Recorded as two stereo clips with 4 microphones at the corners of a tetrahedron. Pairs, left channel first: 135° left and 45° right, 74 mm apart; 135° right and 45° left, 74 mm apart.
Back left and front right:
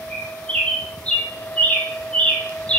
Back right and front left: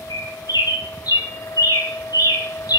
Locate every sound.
0.1 s a bird: 155° right, 1.4 m